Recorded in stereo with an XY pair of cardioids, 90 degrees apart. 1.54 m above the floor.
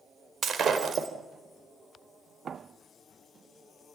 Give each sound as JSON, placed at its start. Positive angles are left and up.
{"t": 0.4, "sound": "breaking glass", "azimuth_deg": -60, "distance_m": 4.0}